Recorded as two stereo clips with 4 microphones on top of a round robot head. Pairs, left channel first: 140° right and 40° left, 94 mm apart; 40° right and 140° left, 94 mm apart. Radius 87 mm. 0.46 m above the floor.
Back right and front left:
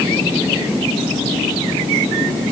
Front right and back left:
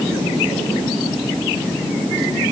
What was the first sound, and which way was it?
Only background noise.